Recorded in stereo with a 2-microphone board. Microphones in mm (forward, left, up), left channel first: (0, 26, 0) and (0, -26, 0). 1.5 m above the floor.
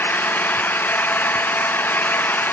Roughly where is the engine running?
Left.